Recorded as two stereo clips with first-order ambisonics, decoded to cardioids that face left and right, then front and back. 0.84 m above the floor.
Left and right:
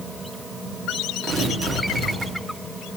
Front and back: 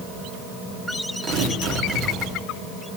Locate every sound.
1.2 s tearing paper: 150° right, 1.9 m